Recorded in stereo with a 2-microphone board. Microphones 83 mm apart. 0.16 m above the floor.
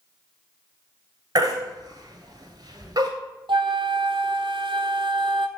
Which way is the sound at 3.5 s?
80° right.